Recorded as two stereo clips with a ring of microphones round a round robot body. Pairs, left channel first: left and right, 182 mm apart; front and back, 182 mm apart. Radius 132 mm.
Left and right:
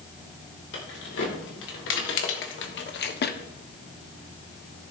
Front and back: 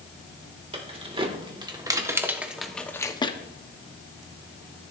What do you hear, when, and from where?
0.7 s keys jangling: 125° left, 2 m; by 3.4 s 60° left, 1.0 m